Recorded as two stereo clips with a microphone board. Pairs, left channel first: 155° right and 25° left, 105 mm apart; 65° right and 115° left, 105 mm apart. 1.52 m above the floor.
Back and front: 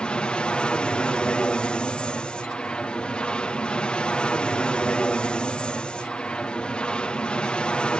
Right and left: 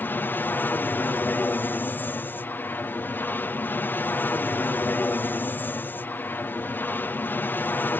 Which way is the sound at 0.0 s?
95° right.